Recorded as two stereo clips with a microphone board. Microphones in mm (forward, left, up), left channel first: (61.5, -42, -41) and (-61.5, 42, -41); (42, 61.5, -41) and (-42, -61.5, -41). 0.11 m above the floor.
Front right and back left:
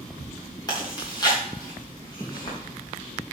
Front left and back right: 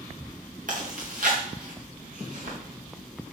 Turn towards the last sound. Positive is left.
turn(degrees=-100)